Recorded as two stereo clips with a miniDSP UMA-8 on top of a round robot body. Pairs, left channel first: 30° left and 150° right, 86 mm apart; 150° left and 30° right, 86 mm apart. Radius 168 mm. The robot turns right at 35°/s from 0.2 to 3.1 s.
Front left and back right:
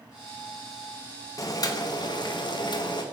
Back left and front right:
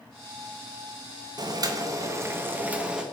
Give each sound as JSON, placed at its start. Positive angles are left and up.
{"t": 1.4, "sound": "boiling", "azimuth_deg": -10, "distance_m": 0.7}